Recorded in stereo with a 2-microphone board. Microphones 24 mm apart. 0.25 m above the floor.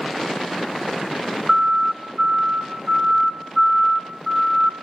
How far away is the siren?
About 4 m.